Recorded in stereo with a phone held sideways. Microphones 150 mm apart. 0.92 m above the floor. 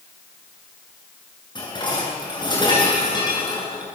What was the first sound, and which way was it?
Dishes clattering, 30° left (ahead or behind).